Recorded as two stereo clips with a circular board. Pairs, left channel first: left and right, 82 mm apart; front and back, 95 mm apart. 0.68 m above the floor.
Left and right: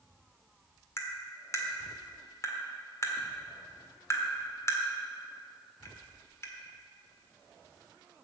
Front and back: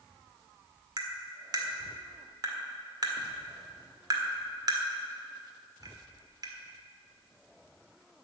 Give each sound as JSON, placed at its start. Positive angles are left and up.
{"t": 1.0, "sound": "tapping", "azimuth_deg": 140, "distance_m": 1.7}